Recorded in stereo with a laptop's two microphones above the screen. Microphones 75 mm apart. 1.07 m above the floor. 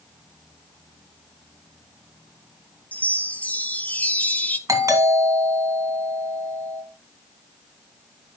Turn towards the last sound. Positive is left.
turn(degrees=-50)  # may be behind; listen again after turning